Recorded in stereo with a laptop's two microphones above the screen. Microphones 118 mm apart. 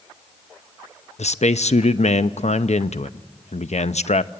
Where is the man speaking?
70° left (ahead or behind), 0.7 m.